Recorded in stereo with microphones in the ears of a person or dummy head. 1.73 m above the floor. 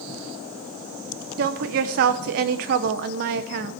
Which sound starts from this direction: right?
A woman speaking, at 1.4 s.